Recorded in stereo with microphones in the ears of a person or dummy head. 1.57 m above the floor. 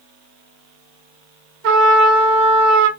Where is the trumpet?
60° right (ahead or behind), 1.7 m.